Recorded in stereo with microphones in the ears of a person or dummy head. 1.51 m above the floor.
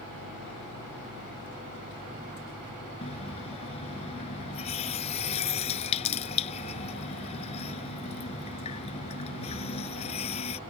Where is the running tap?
35° left (ahead or behind).